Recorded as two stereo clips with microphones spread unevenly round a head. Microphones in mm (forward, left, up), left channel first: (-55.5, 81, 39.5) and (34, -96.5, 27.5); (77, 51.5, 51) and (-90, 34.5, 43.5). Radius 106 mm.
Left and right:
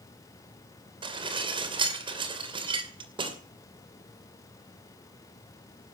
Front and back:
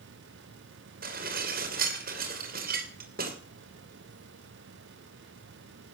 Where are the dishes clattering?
130° right, 2.5 m.